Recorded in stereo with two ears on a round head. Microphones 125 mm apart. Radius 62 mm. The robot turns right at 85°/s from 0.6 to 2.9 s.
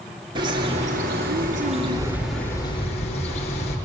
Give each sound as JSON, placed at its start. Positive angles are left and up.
{"t": 0.3, "sound": "a bird", "azimuth_deg": -145, "distance_m": 6.0}